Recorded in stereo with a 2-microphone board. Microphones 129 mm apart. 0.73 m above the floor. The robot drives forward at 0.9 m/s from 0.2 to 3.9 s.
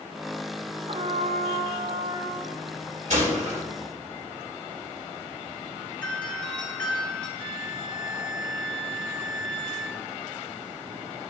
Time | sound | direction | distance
0.9 | a trumpet | 50° right (ahead or behind) | 0.8 m
3.1 | a gunshot | 70° right (ahead or behind) | 3 m
6.0 | a doorbell | 10° left (ahead or behind) | 4 m
7.4 | a violin | 40° right (ahead or behind) | 0.7 m